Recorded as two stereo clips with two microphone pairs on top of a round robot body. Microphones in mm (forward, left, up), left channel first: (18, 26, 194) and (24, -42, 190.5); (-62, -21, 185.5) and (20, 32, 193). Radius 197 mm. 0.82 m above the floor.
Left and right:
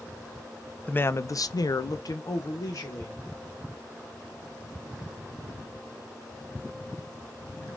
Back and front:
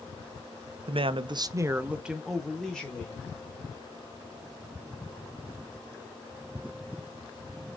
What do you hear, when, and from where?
0.9 s a man speaking: 30° left, 0.5 m; by 3.2 s 135° left, 1.1 m